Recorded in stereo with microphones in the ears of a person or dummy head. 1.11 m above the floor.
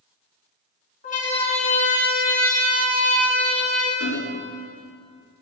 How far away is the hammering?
About 4 m.